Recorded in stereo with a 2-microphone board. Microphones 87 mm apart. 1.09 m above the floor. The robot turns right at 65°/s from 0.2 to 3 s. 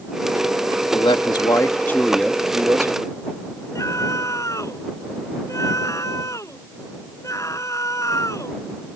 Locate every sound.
0.9 s a man speaking: 95° left; by 3.2 s 130° right
3.8 s a scream: 40° left (ahead or behind)